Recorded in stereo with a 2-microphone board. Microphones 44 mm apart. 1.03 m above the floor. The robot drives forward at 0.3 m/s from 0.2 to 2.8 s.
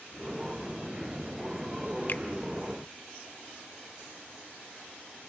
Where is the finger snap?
45° left (ahead or behind), 0.6 m; by 2.2 s 50° left (ahead or behind), 0.6 m.